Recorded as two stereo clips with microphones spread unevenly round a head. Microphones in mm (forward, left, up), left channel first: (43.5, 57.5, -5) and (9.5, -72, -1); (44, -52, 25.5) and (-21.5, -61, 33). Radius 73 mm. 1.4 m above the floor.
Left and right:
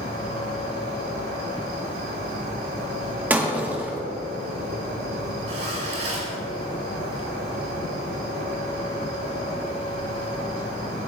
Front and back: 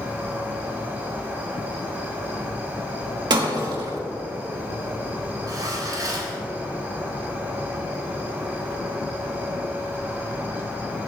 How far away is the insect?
About 4 m.